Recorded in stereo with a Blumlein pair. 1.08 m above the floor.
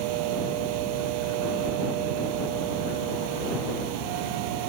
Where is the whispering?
No whispering in this recording.